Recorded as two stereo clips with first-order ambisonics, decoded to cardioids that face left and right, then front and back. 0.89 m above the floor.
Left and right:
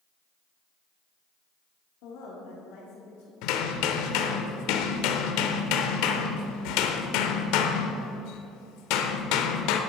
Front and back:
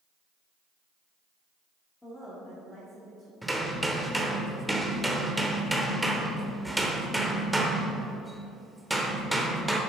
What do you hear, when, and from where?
2.0 s a woman speaking: 80° left, 2 m
3.4 s hammering: 95° left, 0.9 m